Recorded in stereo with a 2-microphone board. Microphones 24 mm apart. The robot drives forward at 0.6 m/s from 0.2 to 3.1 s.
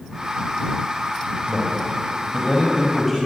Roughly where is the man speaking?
Centre.